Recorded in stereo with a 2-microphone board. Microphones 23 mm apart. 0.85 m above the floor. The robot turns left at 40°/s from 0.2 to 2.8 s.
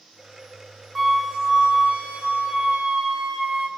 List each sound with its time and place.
0.9 s a flute: 10° right, 0.5 m; by 3.7 s 85° right, 0.5 m